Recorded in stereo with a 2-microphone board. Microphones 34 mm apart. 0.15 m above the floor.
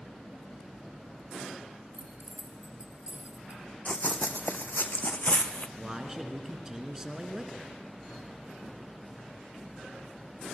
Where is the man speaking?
15° right (ahead or behind), 2 m.